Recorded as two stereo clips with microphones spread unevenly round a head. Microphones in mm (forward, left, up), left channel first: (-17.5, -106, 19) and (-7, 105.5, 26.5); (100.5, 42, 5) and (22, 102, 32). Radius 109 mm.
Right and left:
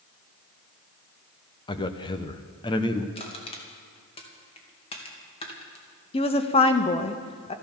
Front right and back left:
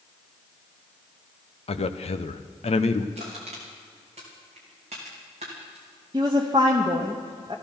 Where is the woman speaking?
155° right, 1.2 m.